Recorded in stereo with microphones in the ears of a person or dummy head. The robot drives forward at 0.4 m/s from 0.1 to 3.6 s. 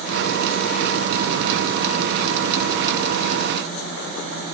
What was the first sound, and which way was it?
Only background noise.